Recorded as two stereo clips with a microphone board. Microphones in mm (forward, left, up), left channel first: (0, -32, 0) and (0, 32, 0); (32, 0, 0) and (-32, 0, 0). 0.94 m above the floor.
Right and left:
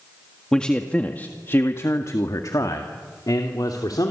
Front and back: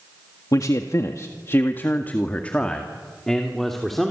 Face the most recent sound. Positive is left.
turn(degrees=-90)